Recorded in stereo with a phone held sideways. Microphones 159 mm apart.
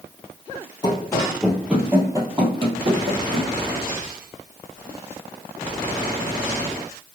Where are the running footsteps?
25° left (ahead or behind), 1.1 m; by 3.5 s 50° right (ahead or behind), 1.9 m.